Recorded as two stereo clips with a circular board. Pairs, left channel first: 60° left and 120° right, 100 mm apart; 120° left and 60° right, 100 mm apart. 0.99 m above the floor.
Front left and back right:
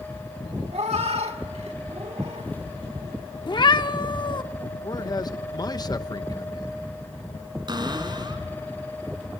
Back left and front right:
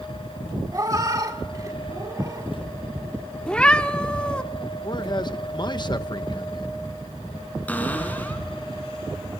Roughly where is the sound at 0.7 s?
Behind right.